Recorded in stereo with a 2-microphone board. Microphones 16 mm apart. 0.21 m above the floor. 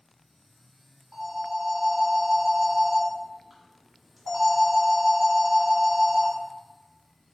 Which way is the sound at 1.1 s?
5° right (ahead or behind).